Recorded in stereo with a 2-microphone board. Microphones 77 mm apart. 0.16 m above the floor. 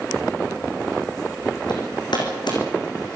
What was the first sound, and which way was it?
Hammering, 70° left (ahead or behind).